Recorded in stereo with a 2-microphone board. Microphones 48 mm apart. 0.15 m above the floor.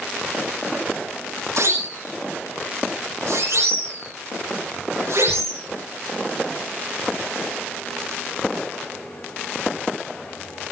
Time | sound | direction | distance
1.6 | a siren | 80° right | 6 m